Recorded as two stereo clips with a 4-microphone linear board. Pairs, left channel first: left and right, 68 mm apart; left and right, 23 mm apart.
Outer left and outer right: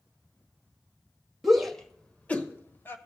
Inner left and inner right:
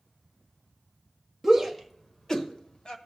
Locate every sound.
1.4 s a shout: centre (ahead or behind), 1.2 m; by 3.0 s 35° left (ahead or behind), 1.3 m